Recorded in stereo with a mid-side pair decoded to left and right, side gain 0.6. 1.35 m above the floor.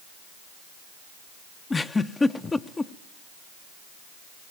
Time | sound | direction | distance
1.7 | a giggle | 20° left | 0.9 m